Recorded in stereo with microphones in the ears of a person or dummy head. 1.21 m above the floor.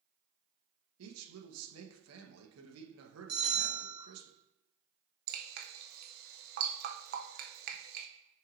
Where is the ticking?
I don't hear ticking.